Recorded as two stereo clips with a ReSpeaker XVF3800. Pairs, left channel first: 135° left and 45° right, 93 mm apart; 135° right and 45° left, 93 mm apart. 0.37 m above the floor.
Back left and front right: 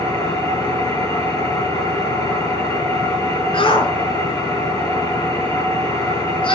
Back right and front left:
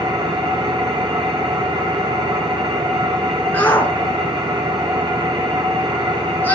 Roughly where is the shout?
Behind left.